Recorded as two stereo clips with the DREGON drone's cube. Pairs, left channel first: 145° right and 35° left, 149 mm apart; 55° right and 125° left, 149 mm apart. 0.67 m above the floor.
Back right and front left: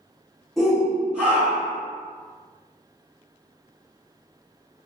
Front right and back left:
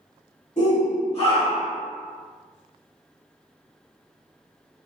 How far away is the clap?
I don't hear a clap.